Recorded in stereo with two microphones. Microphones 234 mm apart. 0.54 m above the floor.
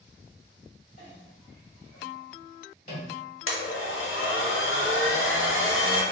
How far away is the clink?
About 1.7 m.